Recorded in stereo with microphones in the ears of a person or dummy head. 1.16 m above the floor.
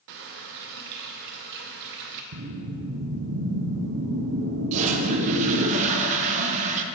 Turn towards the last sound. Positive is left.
turn(degrees=-35)  # may be behind; listen again after turning